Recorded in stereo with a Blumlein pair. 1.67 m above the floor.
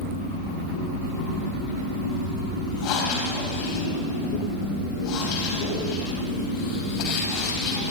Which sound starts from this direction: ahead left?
Breathing, at 2.8 s.